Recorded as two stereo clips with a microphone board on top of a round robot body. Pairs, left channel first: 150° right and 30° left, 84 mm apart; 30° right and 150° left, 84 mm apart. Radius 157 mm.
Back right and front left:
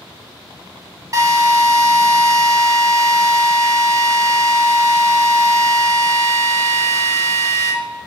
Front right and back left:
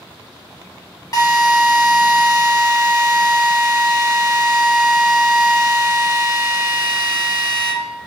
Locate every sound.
1.1 s a drill: 5° right, 1.1 m